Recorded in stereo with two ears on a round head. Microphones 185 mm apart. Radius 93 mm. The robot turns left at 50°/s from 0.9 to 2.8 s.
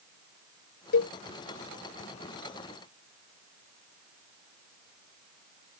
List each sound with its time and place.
0.9 s a cowbell: 75° left (ahead or behind); by 1.1 s 70° left (ahead or behind)